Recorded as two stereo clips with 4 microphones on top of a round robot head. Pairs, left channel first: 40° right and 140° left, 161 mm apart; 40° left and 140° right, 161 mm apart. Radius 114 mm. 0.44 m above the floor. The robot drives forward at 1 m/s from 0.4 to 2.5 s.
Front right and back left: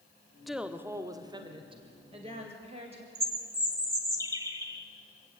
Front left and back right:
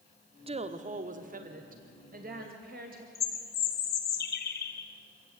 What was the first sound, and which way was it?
A woman speaking, 130° right.